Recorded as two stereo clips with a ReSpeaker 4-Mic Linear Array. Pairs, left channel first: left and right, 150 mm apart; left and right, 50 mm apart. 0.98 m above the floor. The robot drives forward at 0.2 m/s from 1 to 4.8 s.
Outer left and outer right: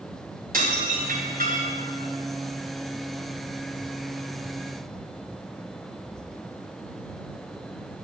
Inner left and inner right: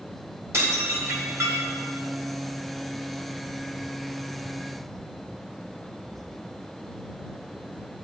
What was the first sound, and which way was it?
Dishes clattering, 75° right (ahead or behind).